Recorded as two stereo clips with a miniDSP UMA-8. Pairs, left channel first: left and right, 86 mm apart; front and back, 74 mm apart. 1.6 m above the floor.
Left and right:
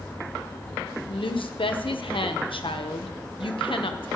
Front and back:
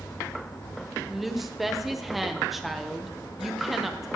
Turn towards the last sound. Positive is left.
turn(degrees=95)